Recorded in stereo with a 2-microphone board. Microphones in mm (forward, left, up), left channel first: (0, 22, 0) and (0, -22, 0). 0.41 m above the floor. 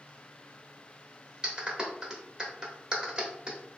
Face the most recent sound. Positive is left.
turn(degrees=-20)  # may be behind; listen again after turning